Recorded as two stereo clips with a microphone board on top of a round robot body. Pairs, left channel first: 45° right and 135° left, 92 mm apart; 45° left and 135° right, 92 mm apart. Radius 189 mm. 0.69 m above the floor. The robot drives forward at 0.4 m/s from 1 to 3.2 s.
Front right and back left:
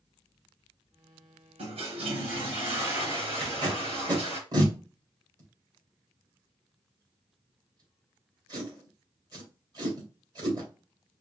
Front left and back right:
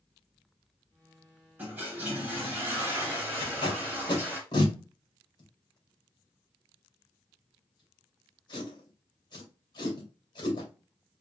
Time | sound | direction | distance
1.6 | a toilet flushing | 150° left | 1.6 m
3.4 | tape being pulled | 90° left | 2.5 m